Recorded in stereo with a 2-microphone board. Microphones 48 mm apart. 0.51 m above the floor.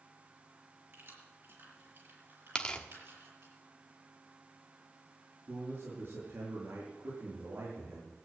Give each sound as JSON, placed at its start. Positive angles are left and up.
{"t": 0.9, "sound": "keys jangling", "side_deg": -60, "distance_m": 5.5}
{"t": 2.5, "sound": "tearing paper", "side_deg": 20, "distance_m": 1.3}
{"t": 5.5, "sound": "a man speaking", "side_deg": -60, "distance_m": 7.0}